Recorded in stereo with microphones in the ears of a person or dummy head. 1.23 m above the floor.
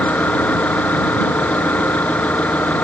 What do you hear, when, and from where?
0.0 s an engine running: 5° left (ahead or behind)